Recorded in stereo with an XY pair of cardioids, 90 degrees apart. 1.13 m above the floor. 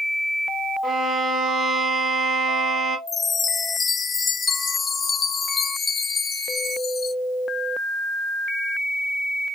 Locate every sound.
0.8 s a violin: 70° right, 1.7 m
3.1 s a chime: 45° left, 0.5 m